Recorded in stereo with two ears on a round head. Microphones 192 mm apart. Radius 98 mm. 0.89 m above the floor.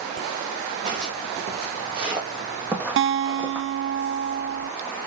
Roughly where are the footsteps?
Right.